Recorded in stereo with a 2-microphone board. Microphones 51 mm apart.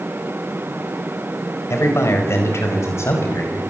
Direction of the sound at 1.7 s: 60° left (ahead or behind).